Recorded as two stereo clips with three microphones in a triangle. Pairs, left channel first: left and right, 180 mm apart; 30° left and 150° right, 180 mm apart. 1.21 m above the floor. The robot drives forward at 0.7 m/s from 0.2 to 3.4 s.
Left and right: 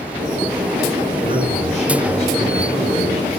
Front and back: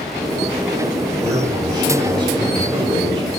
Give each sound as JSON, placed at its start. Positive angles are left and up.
{"t": 1.2, "sound": "a man speaking", "azimuth_deg": 140, "distance_m": 5.5}